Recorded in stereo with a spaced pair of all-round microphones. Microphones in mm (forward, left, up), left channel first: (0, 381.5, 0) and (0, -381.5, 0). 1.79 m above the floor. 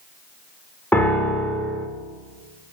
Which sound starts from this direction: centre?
A piano, at 0.9 s.